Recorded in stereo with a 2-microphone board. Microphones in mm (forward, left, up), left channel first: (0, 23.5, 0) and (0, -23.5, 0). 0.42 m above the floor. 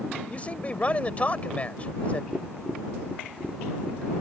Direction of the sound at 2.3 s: Centre (ahead or behind).